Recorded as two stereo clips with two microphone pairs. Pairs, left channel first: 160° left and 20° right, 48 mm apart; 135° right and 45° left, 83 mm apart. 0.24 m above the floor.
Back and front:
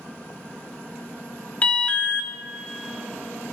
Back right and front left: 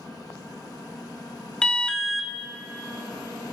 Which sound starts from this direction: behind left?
An alarm, at 1.6 s.